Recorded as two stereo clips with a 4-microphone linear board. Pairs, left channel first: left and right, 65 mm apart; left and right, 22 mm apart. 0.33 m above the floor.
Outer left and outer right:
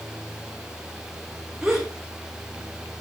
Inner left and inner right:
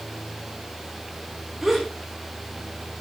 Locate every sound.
1.6 s a gasp: 5° right (ahead or behind), 3.5 m